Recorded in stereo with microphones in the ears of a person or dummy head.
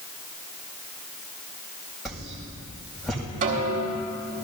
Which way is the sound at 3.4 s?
40° right (ahead or behind).